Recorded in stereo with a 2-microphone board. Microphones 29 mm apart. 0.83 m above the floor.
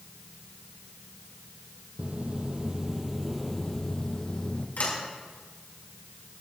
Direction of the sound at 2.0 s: 45° right (ahead or behind).